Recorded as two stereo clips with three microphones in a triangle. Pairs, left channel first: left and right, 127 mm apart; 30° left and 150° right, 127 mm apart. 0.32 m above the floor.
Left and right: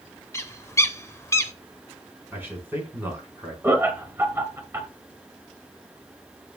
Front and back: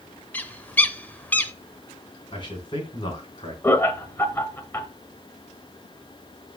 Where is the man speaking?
20° right, 3 m.